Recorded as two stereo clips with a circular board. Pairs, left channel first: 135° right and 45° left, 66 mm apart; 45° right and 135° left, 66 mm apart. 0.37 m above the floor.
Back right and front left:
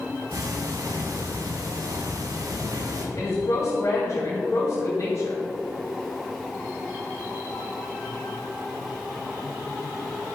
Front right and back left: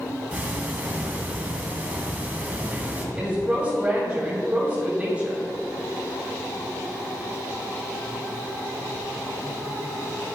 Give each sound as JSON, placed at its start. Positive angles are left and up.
{"t": 0.3, "sound": "ticking", "azimuth_deg": 70, "distance_m": 1.6}
{"t": 3.1, "sound": "a woman speaking", "azimuth_deg": -160, "distance_m": 2.5}